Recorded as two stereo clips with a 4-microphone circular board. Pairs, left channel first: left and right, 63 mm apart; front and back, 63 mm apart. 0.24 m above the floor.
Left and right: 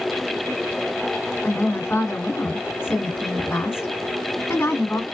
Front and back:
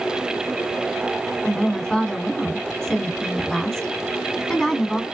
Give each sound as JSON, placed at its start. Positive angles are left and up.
{"t": 1.4, "sound": "a woman speaking", "azimuth_deg": 70, "distance_m": 2.0}